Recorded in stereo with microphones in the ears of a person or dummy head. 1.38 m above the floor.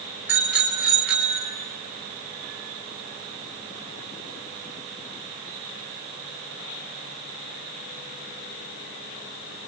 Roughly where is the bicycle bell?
Centre.